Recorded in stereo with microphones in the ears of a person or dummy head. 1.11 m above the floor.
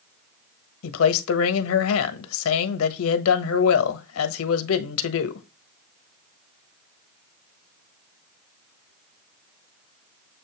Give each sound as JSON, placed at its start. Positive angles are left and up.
{"t": 0.8, "sound": "a man speaking", "side_deg": 75, "distance_m": 1.2}